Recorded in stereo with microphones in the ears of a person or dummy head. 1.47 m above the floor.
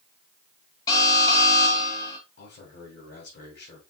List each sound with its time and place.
0.9 s an alarm: 25° left (ahead or behind), 1.5 m
2.4 s a man speaking: 60° left (ahead or behind), 2.5 m